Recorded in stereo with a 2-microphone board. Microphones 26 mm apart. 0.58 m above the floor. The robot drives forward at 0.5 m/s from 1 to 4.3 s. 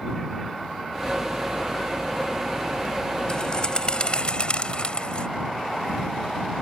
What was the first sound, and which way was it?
A bird, 35° left (ahead or behind).